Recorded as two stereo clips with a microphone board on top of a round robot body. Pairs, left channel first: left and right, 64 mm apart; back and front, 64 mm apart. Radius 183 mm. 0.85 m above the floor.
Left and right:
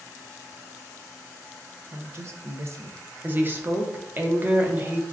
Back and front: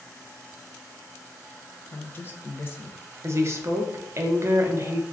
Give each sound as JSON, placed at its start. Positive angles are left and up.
{"t": 1.9, "sound": "a woman speaking", "azimuth_deg": -125, "distance_m": 0.6}
{"t": 3.2, "sound": "a woman speaking", "azimuth_deg": -35, "distance_m": 0.7}